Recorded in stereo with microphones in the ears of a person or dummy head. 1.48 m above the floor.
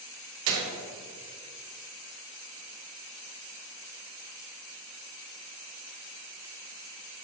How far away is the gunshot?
About 0.8 m.